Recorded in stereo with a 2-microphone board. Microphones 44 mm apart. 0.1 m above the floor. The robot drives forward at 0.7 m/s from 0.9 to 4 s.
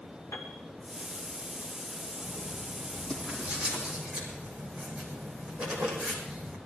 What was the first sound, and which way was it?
A piano, 75° left (ahead or behind).